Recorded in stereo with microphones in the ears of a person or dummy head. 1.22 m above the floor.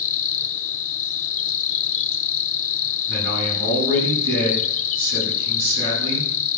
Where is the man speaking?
80° right, 8 m.